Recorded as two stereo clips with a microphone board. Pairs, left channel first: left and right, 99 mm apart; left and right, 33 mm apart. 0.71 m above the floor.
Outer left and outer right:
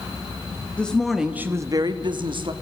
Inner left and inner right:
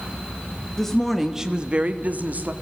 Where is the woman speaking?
10° left (ahead or behind), 1.7 m; by 2.5 s 55° right (ahead or behind), 2.0 m.